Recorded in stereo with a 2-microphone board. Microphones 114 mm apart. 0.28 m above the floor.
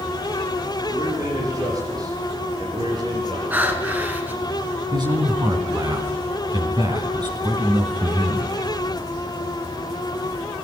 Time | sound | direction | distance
0.9 | a man speaking | 30° right (ahead or behind) | 10 m
3.5 | breathing | 15° right (ahead or behind) | 3 m
4.9 | a man speaking | 40° right (ahead or behind) | 2.5 m